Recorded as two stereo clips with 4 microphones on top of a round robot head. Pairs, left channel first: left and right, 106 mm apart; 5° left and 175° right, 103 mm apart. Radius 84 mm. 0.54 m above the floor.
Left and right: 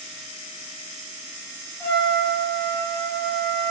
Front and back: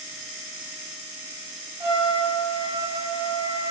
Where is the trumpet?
155° left, 1.7 m.